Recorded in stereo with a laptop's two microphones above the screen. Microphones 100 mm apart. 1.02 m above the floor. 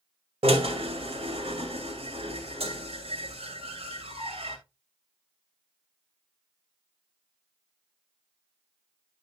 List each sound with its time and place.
0.4 s a drill: 75° right (ahead or behind), 2.5 m